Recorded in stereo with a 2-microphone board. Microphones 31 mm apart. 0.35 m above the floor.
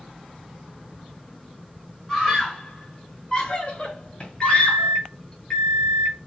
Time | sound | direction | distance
2.1 | a scream | 5° left (ahead or behind) | 1.4 m
4.4 | a microwave | 25° left (ahead or behind) | 1.0 m